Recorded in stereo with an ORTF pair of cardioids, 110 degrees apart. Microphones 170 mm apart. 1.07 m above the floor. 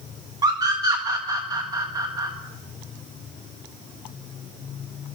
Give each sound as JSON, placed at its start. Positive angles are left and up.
{"t": 0.4, "sound": "a scream", "azimuth_deg": -20, "distance_m": 1.5}